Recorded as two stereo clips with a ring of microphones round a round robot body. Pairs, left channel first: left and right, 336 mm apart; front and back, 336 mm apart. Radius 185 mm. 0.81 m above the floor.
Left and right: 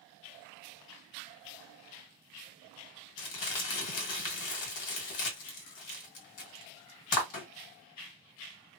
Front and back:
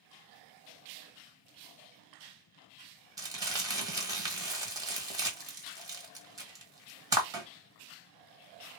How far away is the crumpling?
About 1.3 m.